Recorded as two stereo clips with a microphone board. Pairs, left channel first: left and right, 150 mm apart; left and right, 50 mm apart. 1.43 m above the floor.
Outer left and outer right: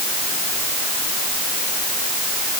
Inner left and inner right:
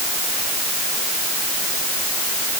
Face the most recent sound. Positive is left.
No sound to turn to.